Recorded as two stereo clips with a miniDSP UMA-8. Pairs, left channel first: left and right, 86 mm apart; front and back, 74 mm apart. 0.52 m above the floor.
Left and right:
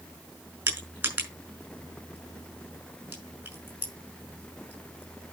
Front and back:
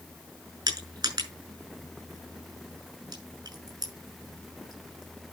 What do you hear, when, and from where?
0.7 s crushing: 160° right, 5.5 m